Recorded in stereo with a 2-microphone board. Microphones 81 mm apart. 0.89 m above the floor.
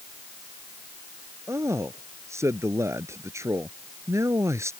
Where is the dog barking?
I don't hear a dog barking.